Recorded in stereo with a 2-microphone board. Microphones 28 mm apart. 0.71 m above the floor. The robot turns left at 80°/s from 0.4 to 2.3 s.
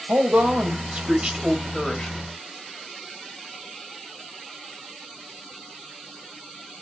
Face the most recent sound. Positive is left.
turn(degrees=120)